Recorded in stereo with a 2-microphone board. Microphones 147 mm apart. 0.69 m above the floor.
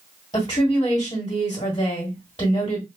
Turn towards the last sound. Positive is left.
turn(degrees=30)  # may be behind; listen again after turning